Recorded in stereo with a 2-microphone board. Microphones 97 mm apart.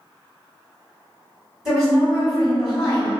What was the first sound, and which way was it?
A woman speaking, 5° right (ahead or behind).